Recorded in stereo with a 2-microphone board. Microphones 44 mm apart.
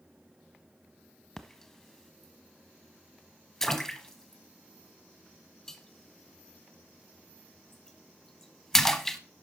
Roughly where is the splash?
Centre.